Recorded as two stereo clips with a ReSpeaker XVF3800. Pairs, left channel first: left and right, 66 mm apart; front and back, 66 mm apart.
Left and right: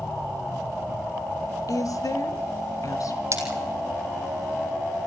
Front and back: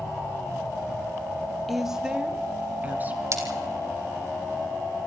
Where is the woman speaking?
90° left, 1.8 m; by 3.2 s 120° left, 3.5 m.